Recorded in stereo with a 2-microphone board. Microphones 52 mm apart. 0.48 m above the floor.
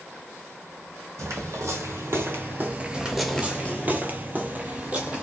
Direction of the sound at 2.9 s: 15° right (ahead or behind).